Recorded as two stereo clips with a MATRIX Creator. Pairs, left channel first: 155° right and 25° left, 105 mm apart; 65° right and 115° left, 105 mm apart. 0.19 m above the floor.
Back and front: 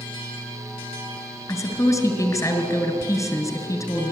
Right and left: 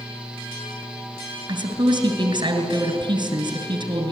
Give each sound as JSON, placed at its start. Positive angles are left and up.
{"t": 1.5, "sound": "a woman speaking", "azimuth_deg": 150, "distance_m": 2.5}